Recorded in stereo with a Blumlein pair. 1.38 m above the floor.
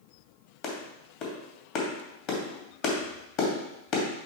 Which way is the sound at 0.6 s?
40° left.